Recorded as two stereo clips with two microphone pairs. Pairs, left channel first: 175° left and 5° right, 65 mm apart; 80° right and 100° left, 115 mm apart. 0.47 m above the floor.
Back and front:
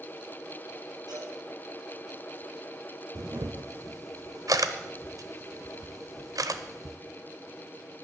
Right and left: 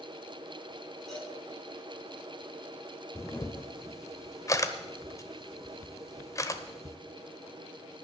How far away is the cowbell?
About 5.5 m.